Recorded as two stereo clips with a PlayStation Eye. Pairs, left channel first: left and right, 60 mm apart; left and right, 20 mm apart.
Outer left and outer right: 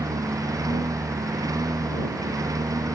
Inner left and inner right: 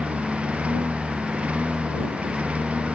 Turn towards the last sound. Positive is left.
turn(degrees=-75)  # may be behind; listen again after turning